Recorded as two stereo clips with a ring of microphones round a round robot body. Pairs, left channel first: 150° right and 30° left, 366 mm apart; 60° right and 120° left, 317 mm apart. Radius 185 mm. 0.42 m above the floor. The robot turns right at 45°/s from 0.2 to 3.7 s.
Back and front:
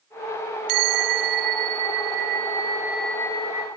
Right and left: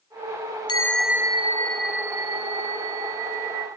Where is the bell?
15° left, 0.7 m; by 3.7 s 150° left, 0.7 m.